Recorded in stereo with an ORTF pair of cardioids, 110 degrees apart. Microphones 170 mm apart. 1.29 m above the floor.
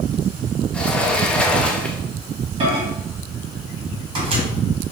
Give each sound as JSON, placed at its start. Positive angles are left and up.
{"t": 0.7, "sound": "a sliding door", "azimuth_deg": 5, "distance_m": 0.8}
{"t": 2.6, "sound": "a microwave", "azimuth_deg": -30, "distance_m": 2.0}